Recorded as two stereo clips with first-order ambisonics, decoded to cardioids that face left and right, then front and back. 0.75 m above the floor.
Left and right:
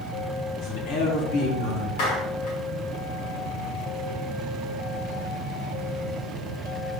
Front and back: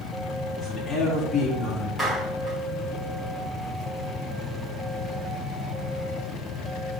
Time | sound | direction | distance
0.6 | a man speaking | 80° left | 6 m
2.0 | a clap | 95° left | 6 m